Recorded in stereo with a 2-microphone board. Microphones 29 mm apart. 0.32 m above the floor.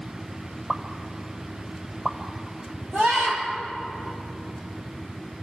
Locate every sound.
0.7 s a pop: 15° right (ahead or behind), 1.3 m
2.9 s a scream: 40° right (ahead or behind), 7 m